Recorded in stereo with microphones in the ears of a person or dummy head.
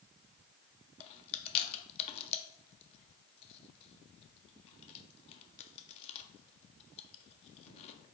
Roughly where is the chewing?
Left.